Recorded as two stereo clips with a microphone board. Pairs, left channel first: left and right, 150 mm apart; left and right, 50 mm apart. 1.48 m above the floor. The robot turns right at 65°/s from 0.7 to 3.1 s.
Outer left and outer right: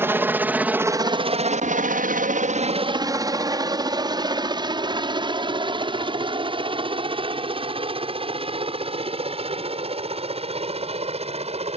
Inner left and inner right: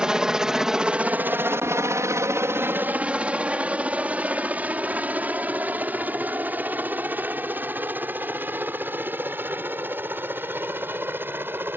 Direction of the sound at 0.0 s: 15° right (ahead or behind).